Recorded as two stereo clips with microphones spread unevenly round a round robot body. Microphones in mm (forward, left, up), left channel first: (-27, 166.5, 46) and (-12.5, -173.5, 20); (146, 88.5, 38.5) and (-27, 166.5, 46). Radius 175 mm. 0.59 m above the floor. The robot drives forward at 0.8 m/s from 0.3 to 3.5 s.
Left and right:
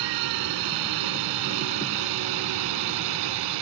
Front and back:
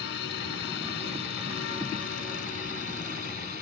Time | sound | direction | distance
0.0 | a drone | 70° right | ?